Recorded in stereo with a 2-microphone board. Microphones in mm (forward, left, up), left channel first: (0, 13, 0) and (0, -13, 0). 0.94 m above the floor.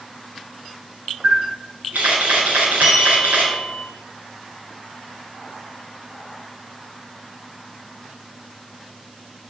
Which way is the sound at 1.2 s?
85° right.